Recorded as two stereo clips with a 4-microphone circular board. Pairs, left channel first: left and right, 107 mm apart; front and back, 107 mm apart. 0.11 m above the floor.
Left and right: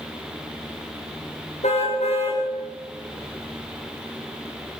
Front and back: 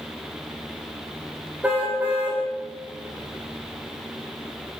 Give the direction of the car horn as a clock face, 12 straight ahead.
9 o'clock.